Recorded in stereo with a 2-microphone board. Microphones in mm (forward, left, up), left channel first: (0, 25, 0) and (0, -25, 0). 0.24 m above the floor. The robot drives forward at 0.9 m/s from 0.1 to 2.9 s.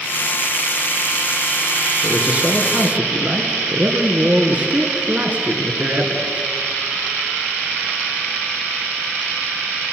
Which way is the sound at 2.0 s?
25° right (ahead or behind).